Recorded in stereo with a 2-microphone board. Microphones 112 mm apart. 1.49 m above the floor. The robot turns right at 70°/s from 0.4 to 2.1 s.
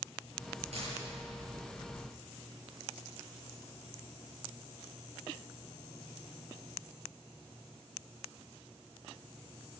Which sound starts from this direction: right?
A dropped coin, at 0.7 s.